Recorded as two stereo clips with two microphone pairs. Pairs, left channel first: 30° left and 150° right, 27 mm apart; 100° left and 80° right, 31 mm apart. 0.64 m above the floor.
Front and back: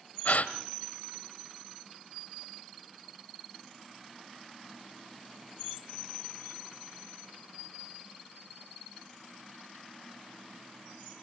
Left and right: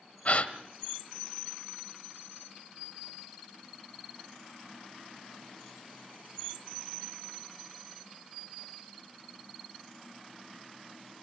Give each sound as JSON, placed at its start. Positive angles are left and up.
{"t": 0.2, "sound": "a gasp", "azimuth_deg": 65, "distance_m": 1.1}